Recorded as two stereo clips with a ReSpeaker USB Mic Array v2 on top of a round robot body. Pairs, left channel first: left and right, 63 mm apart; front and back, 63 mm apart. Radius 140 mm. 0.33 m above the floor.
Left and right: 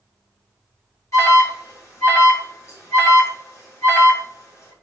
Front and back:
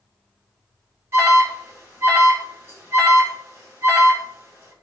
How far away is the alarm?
About 6 m.